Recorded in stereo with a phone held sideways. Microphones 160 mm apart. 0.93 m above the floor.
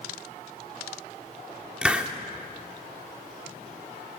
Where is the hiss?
5° right (ahead or behind), 1.6 m.